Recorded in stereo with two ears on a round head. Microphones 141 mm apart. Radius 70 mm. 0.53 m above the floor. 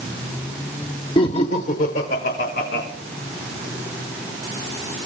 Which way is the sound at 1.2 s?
35° left (ahead or behind).